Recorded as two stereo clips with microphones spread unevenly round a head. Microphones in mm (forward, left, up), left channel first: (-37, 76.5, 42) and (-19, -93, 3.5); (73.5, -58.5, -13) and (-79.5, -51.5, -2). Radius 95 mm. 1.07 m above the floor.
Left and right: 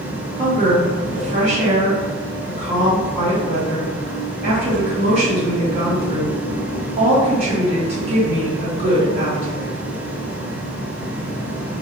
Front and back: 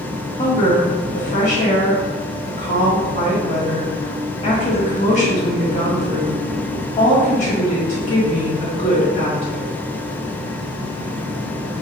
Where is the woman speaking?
35° right, 1.8 m.